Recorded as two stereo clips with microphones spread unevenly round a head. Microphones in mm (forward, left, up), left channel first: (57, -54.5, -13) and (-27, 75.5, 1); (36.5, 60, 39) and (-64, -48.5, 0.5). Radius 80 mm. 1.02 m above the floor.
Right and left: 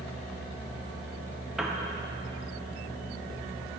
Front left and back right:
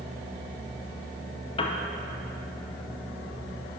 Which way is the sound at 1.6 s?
25° left.